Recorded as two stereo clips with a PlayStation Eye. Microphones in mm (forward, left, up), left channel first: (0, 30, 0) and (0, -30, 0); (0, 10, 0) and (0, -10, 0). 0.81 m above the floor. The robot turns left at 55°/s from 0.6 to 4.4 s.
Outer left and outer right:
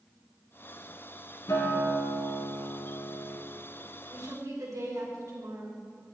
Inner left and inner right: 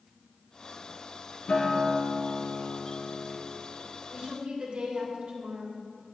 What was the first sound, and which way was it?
A guitar, 115° left.